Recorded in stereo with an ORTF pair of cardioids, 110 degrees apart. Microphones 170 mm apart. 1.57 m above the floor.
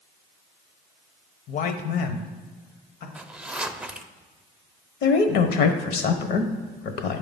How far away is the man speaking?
About 0.8 m.